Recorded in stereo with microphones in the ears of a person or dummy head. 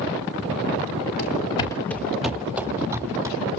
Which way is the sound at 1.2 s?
30° left (ahead or behind).